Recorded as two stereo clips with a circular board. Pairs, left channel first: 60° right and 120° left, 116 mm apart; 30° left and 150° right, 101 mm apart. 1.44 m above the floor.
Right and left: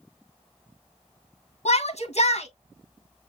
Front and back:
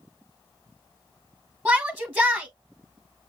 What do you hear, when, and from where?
1.6 s a shout: 60° right, 0.8 m